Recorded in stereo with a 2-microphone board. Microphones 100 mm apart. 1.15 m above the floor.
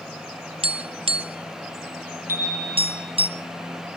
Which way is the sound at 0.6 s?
65° right (ahead or behind).